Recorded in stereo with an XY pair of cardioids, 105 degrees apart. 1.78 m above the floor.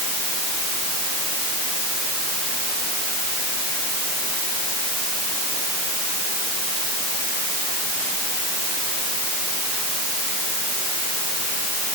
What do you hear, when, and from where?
Only background noise.